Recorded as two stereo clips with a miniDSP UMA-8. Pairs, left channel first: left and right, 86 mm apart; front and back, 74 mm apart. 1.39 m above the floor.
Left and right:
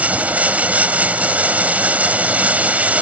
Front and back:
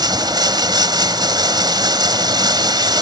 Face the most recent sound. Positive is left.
turn(degrees=-160)